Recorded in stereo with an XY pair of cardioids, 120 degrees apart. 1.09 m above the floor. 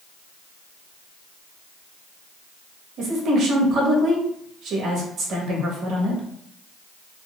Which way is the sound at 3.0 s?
60° right.